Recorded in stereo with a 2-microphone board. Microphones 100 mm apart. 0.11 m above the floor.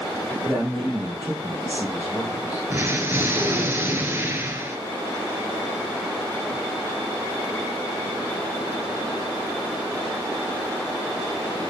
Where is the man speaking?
15° right (ahead or behind), 3.5 m.